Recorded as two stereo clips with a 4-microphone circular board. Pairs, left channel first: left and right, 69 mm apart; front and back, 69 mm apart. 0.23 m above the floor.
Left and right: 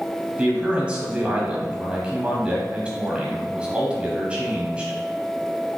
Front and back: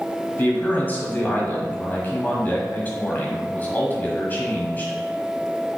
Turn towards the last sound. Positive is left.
turn(degrees=-30)